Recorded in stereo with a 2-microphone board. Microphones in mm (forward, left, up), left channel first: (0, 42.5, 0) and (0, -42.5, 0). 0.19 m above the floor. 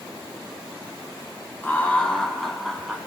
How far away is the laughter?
About 1.2 m.